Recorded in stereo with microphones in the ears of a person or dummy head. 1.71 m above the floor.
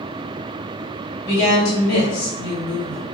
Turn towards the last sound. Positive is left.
turn(degrees=60)  # may be behind; listen again after turning